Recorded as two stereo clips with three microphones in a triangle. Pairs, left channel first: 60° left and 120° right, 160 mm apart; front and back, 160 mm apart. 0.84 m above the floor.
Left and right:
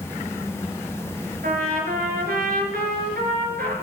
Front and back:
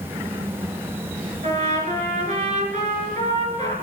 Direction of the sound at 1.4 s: 135° right.